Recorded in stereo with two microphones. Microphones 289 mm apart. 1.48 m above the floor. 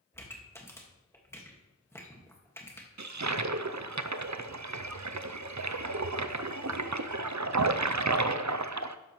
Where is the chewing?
No chewing in this recording.